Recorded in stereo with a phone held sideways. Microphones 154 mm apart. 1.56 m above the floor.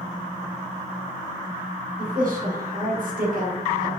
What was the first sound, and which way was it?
A woman speaking, 65° right (ahead or behind).